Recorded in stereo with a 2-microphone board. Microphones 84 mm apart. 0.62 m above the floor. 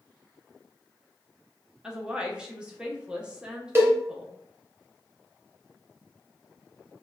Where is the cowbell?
30° right (ahead or behind), 0.6 m.